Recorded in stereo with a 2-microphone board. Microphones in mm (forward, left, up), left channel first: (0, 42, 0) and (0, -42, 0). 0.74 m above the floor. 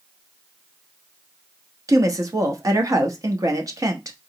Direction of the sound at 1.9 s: 45° right (ahead or behind).